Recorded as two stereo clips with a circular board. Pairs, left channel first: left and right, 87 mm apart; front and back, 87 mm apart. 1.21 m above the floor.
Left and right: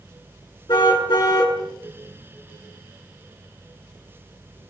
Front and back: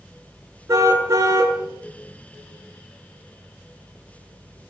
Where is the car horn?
120° left, 7.5 m.